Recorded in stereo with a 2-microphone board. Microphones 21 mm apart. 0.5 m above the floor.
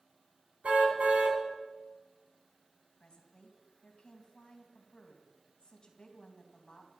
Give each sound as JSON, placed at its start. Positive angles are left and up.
{"t": 0.6, "sound": "a car horn", "side_deg": -75, "distance_m": 2.5}
{"t": 3.0, "sound": "a woman speaking", "side_deg": 35, "distance_m": 3.0}